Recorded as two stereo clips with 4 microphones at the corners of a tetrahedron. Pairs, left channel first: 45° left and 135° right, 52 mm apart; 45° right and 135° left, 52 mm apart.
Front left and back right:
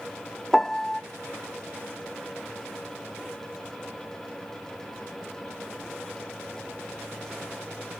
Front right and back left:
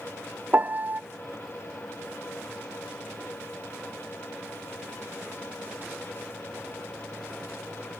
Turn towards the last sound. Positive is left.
turn(degrees=120)